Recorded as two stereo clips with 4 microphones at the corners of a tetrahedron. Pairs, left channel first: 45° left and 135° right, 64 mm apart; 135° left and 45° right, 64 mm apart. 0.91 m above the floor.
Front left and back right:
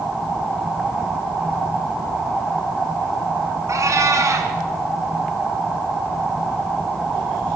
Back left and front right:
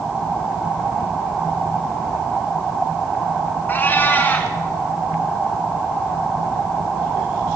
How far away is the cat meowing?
About 1.8 m.